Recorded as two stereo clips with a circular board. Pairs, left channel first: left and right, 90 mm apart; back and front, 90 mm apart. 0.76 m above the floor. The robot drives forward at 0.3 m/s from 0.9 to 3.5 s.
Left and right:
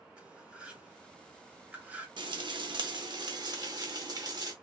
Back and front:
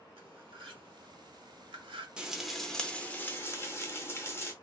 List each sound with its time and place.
0.2 s cutlery clinking: 10° right, 1.0 m; by 2.1 s 15° right, 0.7 m
2.2 s frying: 80° right, 0.5 m; by 4.5 s 125° right, 0.6 m